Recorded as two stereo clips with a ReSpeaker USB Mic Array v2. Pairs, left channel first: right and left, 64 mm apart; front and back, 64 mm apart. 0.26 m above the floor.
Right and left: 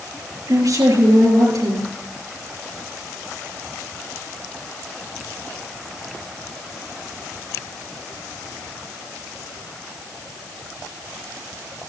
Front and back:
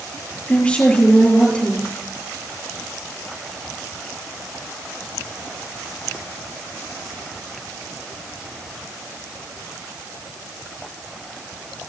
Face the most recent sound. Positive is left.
turn(degrees=75)